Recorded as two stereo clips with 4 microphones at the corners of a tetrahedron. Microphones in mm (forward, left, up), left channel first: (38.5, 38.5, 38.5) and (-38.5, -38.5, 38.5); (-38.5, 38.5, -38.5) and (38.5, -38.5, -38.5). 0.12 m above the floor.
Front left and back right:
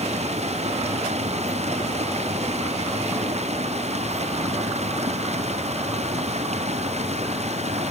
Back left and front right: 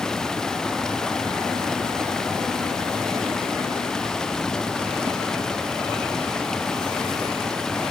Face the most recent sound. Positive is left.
turn(degrees=-140)